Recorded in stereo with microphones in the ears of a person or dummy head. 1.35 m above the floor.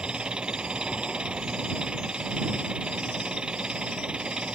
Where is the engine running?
5° right (ahead or behind).